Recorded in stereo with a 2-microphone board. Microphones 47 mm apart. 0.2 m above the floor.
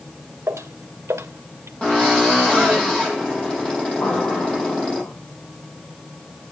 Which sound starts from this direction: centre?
A drill, at 1.8 s.